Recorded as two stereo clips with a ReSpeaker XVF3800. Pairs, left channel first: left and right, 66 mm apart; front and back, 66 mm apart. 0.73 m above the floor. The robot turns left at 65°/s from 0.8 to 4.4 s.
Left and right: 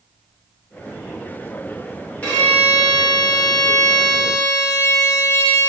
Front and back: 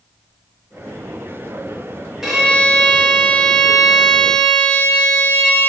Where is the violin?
110° left, 0.9 m; by 5.7 s 30° right, 0.9 m.